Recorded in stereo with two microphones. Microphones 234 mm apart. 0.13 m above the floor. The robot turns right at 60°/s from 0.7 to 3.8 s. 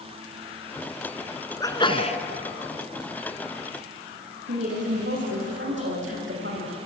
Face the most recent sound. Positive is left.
turn(degrees=-55)  # may be behind; listen again after turning